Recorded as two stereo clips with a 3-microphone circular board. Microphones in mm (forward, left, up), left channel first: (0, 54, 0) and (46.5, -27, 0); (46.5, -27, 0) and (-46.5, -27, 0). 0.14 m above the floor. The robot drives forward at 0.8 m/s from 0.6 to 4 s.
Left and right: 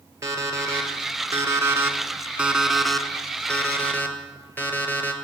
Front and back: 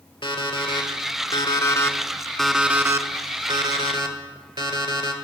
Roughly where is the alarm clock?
Ahead.